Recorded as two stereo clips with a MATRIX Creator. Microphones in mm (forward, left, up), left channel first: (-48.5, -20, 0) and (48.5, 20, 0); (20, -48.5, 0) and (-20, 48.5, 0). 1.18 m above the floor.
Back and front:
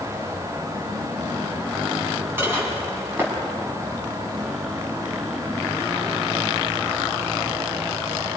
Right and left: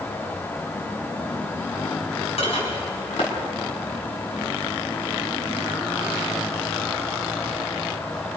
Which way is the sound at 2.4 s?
45° right.